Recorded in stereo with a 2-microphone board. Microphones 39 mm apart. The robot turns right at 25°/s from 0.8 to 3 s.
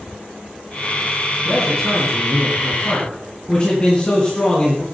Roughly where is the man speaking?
Ahead.